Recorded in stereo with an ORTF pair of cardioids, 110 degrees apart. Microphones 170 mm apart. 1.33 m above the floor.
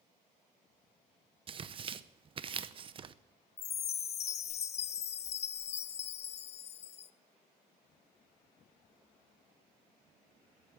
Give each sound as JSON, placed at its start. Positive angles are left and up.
{"t": 1.5, "sound": "tearing paper", "azimuth_deg": -35, "distance_m": 0.7}
{"t": 3.6, "sound": "a chime", "azimuth_deg": 40, "distance_m": 0.6}